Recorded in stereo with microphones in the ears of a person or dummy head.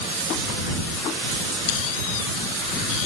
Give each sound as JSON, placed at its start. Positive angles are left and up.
{"t": 1.7, "sound": "a squeak", "side_deg": 80}